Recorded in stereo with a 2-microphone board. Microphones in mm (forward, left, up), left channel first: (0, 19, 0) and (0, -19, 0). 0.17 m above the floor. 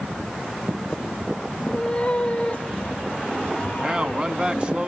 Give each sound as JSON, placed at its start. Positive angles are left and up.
{"t": 1.6, "sound": "a cat meowing", "side_deg": 20, "distance_m": 1.8}
{"t": 3.8, "sound": "a man speaking", "side_deg": -25, "distance_m": 1.2}